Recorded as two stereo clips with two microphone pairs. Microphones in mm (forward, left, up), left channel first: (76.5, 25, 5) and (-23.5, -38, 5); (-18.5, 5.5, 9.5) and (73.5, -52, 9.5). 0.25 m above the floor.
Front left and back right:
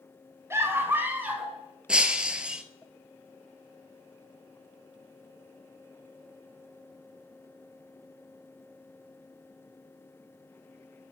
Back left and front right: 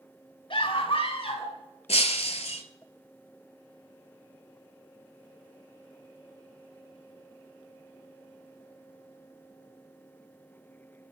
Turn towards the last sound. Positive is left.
turn(degrees=130)